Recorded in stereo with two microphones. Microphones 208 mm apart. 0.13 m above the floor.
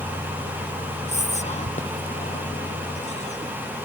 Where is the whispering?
35° left (ahead or behind).